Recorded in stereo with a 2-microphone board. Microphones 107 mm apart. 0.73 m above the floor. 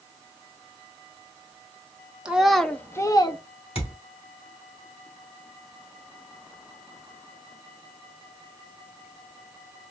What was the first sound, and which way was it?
A child speaking, 10° right (ahead or behind).